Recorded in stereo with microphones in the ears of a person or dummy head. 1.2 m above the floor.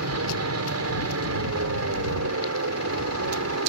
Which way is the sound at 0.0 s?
70° right (ahead or behind).